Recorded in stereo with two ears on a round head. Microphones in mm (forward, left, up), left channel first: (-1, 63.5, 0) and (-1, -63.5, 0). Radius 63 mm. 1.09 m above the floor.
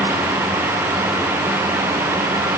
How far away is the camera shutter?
No camera shutter in this recording.